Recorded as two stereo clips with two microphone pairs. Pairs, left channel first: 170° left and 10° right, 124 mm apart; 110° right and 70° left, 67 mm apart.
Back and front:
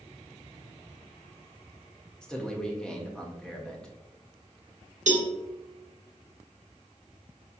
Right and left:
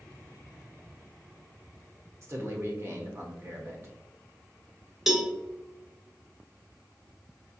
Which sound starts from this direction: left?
A man speaking, at 2.2 s.